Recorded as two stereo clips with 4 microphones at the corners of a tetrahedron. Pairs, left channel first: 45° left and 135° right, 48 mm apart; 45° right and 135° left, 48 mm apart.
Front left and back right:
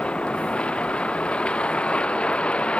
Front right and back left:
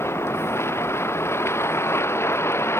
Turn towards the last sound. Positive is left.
turn(degrees=-20)